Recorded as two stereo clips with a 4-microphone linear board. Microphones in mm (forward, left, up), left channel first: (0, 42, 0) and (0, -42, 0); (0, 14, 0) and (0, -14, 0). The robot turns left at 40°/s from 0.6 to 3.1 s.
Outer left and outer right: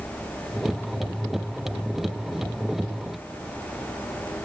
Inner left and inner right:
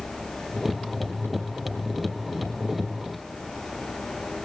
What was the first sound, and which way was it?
Only background noise.